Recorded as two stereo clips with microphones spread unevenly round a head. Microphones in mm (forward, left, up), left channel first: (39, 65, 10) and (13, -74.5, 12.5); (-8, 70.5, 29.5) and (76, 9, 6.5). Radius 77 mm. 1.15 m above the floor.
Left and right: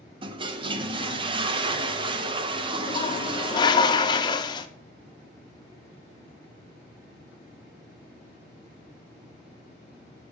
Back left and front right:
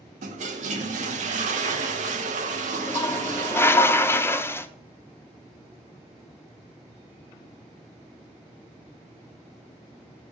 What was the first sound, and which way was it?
A toilet flushing, 45° right.